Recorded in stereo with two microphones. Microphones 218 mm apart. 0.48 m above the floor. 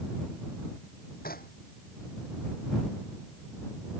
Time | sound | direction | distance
1.2 | knocking | 45° left (ahead or behind) | ?